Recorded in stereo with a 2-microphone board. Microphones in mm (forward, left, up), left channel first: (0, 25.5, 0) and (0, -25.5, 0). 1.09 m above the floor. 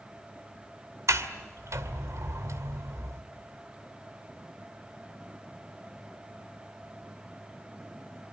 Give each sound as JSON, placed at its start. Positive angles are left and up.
{"t": 1.1, "sound": "a sliding door", "side_deg": -75, "distance_m": 2.0}